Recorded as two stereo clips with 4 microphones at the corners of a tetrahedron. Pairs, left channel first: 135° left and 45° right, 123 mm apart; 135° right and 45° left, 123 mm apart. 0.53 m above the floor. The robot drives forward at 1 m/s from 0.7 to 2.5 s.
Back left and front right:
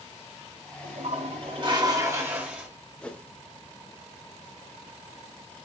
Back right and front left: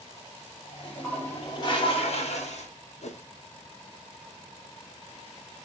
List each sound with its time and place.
0.8 s a toilet flushing: 50° right, 1.5 m; by 2.7 s 125° right, 1.5 m
3.0 s a whoosh: 145° right, 0.6 m